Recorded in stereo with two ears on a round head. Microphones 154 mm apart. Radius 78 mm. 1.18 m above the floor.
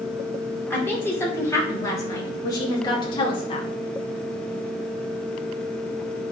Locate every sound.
0.7 s a woman speaking: 10° left (ahead or behind), 3.5 m; by 3.7 s 35° left (ahead or behind), 2.5 m